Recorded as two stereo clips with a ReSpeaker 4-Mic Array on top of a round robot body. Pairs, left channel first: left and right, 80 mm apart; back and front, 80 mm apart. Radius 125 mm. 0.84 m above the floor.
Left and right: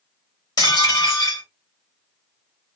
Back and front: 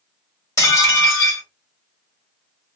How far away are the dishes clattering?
About 2.0 m.